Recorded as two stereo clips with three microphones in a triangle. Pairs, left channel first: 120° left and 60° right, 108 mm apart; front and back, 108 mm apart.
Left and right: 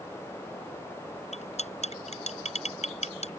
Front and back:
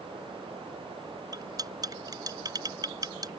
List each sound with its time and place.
1.3 s cutlery clinking: 125° left